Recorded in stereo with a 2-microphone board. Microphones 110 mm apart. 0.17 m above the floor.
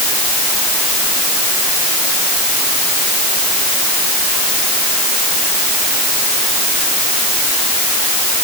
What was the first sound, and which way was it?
Only background noise.